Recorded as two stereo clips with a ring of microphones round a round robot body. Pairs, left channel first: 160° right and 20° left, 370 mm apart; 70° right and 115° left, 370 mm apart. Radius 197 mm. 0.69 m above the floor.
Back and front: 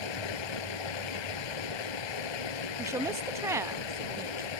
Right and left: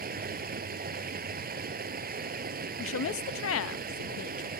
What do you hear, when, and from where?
0.0 s running water: straight behind
2.8 s a woman speaking: 55° right